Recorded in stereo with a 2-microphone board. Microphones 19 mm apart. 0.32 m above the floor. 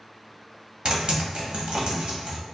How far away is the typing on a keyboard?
About 1.0 m.